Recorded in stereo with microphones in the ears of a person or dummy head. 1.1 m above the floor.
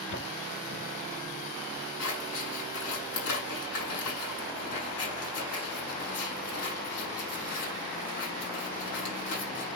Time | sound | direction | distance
0.1 | footsteps | 50° left (ahead or behind) | 9.5 m
2.0 | scissors | 70° left (ahead or behind) | 8.5 m